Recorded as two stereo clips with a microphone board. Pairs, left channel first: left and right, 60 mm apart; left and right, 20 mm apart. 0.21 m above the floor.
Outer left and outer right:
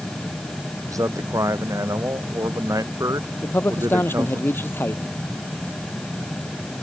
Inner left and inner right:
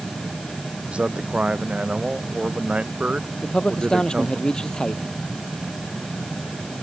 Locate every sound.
0.9 s a man speaking: 70° right (ahead or behind)
3.4 s a man speaking: 40° left (ahead or behind)